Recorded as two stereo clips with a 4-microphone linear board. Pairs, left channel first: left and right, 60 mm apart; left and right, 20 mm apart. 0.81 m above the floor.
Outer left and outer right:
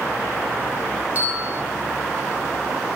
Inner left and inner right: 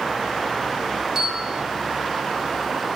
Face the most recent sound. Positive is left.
turn(degrees=-30)  # may be behind; listen again after turning